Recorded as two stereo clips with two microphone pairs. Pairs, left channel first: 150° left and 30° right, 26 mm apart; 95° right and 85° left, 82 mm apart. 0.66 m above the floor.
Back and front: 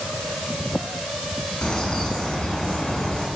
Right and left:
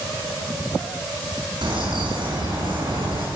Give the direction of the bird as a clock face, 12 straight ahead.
9 o'clock.